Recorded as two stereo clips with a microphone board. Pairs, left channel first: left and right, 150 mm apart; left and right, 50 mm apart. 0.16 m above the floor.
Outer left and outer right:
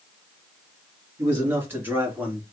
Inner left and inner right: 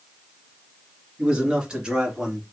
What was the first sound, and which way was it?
A man speaking, 15° right (ahead or behind).